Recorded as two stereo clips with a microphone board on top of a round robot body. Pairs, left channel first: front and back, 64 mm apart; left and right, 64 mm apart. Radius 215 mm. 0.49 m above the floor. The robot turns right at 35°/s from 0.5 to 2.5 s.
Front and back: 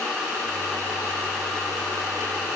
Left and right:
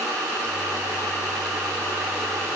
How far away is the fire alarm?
I don't hear a fire alarm.